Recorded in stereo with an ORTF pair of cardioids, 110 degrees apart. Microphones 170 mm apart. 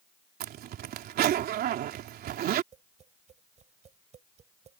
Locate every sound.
0.4 s a zipper: 65° right
2.7 s tapping: 45° right